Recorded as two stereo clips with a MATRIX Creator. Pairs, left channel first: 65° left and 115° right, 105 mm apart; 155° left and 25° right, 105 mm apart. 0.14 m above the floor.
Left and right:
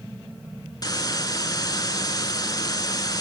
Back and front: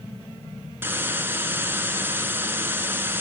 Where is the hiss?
40° left, 0.9 m.